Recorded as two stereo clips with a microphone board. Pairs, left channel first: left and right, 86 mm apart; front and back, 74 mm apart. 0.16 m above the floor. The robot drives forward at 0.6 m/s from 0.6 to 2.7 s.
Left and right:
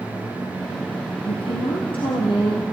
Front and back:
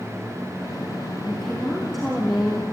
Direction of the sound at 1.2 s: 85° left.